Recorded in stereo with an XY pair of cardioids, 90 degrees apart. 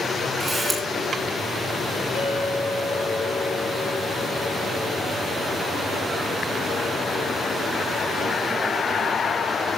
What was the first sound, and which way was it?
A camera shutter, 20° right.